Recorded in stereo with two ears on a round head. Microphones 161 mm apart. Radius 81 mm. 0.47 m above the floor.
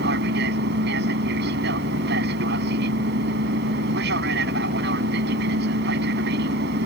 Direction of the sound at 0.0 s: 60° right (ahead or behind).